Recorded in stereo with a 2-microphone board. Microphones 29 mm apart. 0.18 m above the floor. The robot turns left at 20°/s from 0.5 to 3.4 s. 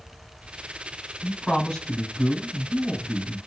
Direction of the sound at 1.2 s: 15° left (ahead or behind).